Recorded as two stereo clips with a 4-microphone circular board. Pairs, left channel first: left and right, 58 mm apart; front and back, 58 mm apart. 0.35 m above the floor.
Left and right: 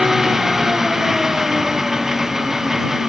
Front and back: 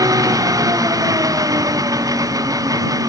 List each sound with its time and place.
0.0 s an engine running: 175° right